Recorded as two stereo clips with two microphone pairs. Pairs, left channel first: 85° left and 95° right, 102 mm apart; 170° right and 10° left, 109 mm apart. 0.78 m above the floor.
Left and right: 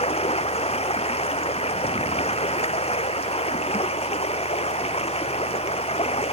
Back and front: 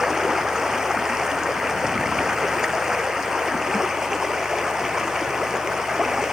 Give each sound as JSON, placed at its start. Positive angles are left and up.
{"t": 0.0, "sound": "running water", "azimuth_deg": 95}